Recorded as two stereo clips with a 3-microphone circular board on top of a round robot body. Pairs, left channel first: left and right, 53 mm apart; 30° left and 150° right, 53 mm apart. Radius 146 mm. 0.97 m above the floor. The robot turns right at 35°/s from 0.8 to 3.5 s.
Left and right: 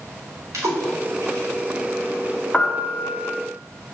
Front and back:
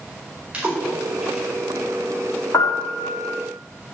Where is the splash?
85° right, 4.5 m; by 1.5 s 60° right, 4.5 m.